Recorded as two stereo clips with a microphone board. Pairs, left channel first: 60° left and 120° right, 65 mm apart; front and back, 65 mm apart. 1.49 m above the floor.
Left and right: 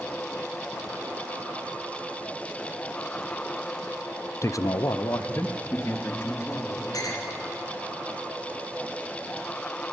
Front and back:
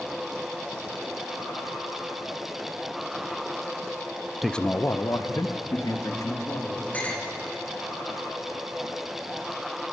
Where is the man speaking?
95° left, 0.6 m; by 6.8 s 10° left, 3 m.